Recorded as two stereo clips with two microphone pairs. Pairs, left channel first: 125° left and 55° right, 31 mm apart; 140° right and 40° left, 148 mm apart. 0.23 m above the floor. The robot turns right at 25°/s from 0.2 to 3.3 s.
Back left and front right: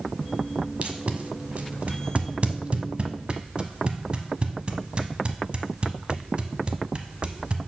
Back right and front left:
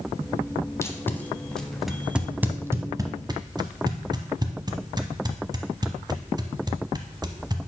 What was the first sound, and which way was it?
Tape being pulled, 80° right.